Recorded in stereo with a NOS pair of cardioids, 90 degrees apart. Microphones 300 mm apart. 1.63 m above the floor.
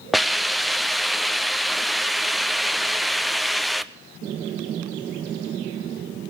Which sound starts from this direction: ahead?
A hiss, at 0.1 s.